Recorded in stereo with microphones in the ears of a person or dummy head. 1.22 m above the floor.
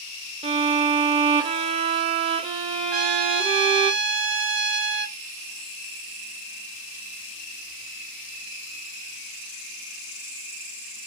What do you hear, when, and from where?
0.4 s a violin: 25° right (ahead or behind), 0.5 m
2.9 s a trumpet: 50° right (ahead or behind), 0.7 m